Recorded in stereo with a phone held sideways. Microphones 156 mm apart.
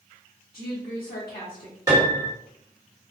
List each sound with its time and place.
0.5 s a woman speaking: 75° left (ahead or behind), 1.7 m
1.9 s a piano: 25° right (ahead or behind), 1.9 m